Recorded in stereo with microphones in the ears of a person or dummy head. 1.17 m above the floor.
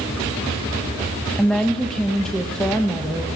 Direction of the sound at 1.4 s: 5° left (ahead or behind).